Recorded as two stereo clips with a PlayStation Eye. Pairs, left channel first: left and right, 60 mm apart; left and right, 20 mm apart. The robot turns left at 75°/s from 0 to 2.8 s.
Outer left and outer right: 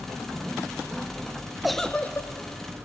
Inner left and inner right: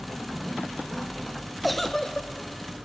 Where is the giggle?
175° right, 0.7 m; by 2.3 s 135° left, 0.7 m.